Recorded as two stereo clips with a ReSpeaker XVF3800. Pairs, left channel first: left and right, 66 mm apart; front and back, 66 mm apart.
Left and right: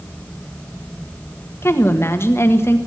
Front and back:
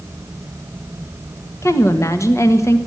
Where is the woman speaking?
40° left, 1.6 m.